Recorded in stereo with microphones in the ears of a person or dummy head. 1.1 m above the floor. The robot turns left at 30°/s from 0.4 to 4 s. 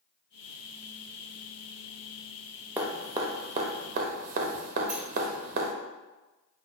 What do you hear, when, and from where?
2.8 s dripping: 15° right (ahead or behind), 0.6 m; by 5.7 s 50° right (ahead or behind), 0.6 m
4.9 s a sliding door: 5° right (ahead or behind), 1.2 m